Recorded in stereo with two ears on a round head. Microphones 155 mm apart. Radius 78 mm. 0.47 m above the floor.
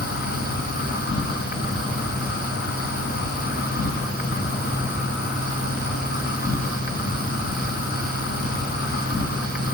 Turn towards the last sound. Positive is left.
turn(degrees=60)  # may be behind; listen again after turning